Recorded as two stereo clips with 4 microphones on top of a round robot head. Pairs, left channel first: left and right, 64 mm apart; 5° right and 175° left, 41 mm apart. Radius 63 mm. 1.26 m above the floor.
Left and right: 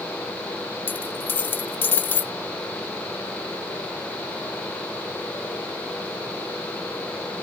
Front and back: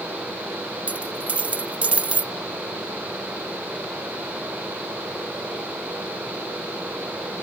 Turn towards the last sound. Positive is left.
turn(degrees=135)